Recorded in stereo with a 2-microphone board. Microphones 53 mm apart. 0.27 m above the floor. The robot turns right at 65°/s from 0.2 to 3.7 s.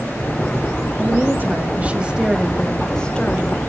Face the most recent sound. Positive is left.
turn(degrees=75)